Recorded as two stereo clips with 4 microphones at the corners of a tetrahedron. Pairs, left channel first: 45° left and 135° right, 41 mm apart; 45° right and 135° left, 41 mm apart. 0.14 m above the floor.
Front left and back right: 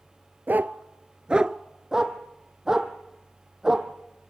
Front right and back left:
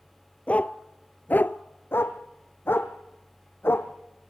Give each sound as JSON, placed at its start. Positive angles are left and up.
{"t": 0.5, "sound": "a dog barking", "azimuth_deg": -100, "distance_m": 1.0}
{"t": 1.9, "sound": "a dog barking", "azimuth_deg": -60, "distance_m": 2.0}